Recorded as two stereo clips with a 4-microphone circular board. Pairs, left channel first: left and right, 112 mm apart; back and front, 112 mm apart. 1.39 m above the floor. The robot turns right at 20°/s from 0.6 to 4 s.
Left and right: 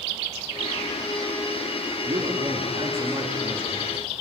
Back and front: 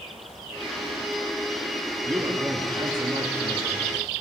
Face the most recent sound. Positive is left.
turn(degrees=-30)